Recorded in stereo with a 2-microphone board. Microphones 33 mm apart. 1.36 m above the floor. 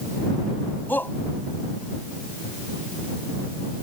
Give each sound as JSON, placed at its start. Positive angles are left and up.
{"t": 0.9, "sound": "a shout", "side_deg": 90}